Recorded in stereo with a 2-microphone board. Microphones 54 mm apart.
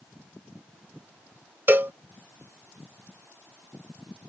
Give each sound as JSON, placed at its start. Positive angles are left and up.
{"t": 1.7, "sound": "a cowbell", "side_deg": -40}